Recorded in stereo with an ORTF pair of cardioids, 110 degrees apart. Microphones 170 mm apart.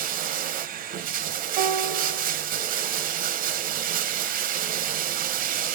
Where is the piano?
70° right, 0.8 m.